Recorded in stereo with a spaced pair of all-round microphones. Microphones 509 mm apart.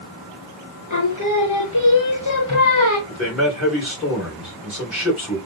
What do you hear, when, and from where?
0.9 s singing: 35° left (ahead or behind), 1.0 m
3.1 s a man speaking: centre (ahead or behind), 2.5 m